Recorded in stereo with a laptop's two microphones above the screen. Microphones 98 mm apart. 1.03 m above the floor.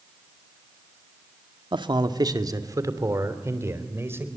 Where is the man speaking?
55° right (ahead or behind), 1.9 m; by 4.3 s 25° right (ahead or behind), 4 m.